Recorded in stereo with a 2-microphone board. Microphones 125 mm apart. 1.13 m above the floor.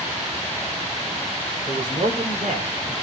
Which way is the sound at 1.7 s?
75° right (ahead or behind).